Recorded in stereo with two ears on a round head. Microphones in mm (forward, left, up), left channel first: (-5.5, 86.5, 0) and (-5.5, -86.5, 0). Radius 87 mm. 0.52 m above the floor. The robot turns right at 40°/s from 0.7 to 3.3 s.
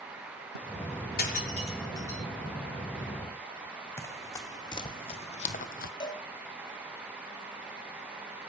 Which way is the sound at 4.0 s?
15° left (ahead or behind).